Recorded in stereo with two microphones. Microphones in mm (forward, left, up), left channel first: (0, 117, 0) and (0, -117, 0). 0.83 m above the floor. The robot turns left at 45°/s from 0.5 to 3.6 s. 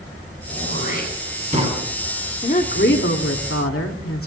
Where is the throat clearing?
75° right (ahead or behind), 8.5 m; by 1.8 s 20° right (ahead or behind), 8.5 m.